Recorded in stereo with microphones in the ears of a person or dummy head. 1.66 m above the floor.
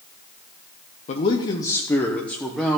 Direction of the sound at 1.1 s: 40° left (ahead or behind).